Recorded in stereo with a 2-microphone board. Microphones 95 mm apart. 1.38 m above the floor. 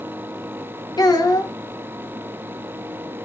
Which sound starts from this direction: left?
A child speaking, at 1.0 s.